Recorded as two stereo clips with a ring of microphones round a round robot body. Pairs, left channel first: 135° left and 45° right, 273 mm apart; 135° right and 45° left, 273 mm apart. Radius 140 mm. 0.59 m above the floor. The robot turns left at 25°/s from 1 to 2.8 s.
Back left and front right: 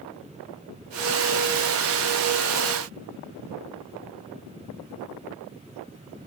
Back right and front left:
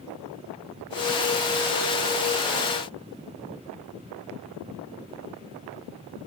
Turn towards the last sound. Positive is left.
No sound to turn to.